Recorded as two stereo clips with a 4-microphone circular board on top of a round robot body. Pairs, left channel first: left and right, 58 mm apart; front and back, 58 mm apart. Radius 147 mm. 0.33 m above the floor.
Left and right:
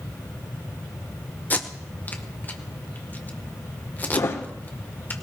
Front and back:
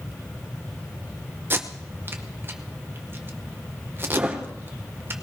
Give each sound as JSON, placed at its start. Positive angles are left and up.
{"t": 1.5, "sound": "tape being pulled", "azimuth_deg": 140, "distance_m": 1.7}
{"t": 4.1, "sound": "a thud", "azimuth_deg": 120, "distance_m": 4.0}